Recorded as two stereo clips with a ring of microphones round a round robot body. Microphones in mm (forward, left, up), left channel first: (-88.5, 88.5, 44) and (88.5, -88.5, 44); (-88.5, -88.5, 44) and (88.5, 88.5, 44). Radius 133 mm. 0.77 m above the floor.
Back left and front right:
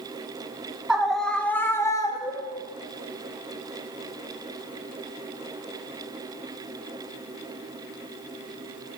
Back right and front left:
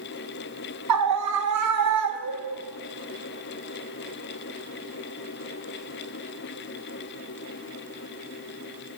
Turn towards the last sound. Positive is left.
turn(degrees=65)